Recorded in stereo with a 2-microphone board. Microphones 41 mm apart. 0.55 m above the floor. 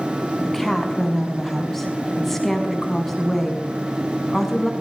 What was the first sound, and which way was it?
A woman speaking, 5° left (ahead or behind).